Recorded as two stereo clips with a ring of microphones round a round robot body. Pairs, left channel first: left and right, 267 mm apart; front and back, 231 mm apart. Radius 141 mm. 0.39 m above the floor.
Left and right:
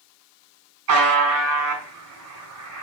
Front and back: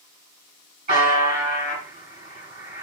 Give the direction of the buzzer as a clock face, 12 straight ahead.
4 o'clock.